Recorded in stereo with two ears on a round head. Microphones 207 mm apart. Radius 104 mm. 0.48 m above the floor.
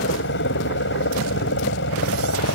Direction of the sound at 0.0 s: 55° left (ahead or behind).